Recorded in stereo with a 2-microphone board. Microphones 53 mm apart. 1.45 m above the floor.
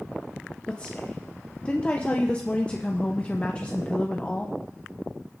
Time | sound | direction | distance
0.7 | a woman speaking | 20° left (ahead or behind) | 0.9 m